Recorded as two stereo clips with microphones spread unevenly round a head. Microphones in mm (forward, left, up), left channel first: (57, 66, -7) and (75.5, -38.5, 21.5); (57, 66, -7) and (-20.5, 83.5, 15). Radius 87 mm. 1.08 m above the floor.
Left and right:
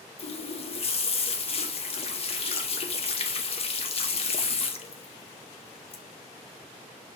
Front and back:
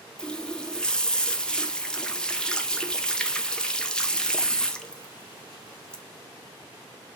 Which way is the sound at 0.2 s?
65° left.